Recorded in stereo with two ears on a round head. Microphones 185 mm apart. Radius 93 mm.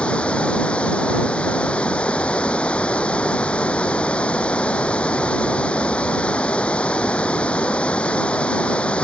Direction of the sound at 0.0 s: 5° left (ahead or behind).